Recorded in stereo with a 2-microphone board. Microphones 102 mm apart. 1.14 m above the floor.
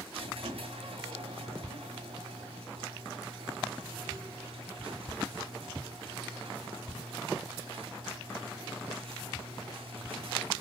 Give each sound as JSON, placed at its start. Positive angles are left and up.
{"t": 0.1, "sound": "a squeak", "side_deg": -70, "distance_m": 2.5}